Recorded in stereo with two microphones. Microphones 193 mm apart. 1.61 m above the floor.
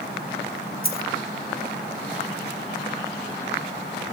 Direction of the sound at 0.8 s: 55° left (ahead or behind).